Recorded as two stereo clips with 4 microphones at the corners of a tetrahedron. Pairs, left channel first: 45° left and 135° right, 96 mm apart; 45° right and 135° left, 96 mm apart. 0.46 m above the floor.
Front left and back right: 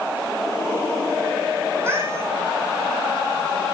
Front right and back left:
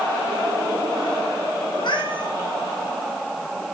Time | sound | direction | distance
1.7 | a cat meowing | 75° right | 4.5 m